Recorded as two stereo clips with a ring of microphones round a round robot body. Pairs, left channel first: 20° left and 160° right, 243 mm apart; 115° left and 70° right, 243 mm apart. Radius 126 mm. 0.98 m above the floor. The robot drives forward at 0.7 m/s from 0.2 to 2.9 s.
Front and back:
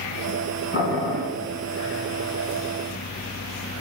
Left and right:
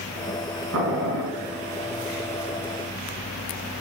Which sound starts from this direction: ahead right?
Boiling, at 0.7 s.